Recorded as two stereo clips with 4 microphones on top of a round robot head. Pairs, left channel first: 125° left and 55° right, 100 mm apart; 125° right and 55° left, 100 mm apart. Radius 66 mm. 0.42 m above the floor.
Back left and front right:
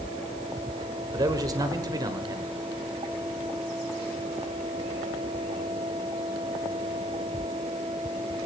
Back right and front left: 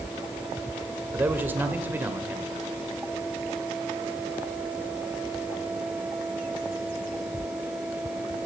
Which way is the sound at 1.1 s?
15° right.